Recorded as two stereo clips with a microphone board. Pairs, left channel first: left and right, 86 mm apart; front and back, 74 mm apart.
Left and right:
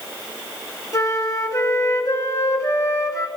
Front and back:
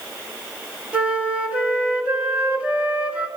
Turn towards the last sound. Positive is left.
turn(degrees=115)